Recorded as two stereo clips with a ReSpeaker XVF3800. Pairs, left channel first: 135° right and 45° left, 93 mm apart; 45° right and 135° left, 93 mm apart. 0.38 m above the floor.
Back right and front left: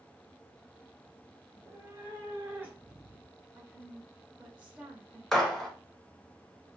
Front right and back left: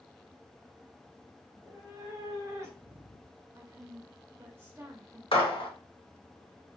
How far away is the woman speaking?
About 1.0 m.